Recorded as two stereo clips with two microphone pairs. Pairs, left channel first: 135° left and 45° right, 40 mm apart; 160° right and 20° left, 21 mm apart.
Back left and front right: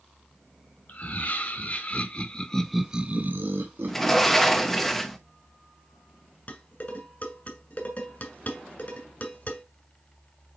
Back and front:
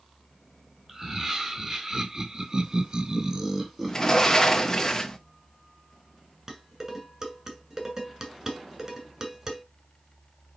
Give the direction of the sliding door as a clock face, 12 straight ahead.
5 o'clock.